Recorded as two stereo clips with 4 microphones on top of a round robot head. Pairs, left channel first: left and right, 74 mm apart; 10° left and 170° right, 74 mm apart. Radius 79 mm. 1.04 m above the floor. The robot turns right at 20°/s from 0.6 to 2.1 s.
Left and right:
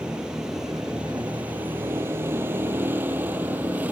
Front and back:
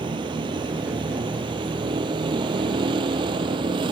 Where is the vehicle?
170° right; by 3.9 s 165° right.